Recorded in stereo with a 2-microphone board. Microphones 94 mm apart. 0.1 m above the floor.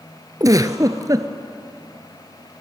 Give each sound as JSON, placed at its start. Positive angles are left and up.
{"t": 0.4, "sound": "a giggle", "side_deg": -40, "distance_m": 0.8}